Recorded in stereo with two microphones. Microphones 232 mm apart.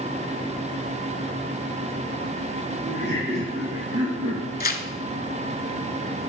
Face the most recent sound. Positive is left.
turn(degrees=40)  # may be behind; listen again after turning